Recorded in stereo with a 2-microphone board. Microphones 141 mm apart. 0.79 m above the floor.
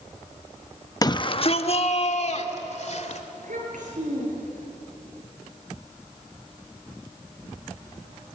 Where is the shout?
25° left (ahead or behind), 0.7 m; by 3.2 s 55° left (ahead or behind), 3 m.